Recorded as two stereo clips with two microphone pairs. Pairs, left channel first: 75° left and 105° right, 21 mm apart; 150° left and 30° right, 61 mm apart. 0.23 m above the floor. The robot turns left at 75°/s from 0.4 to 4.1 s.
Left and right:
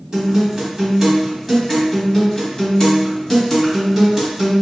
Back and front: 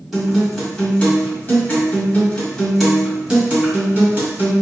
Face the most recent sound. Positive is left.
turn(degrees=-35)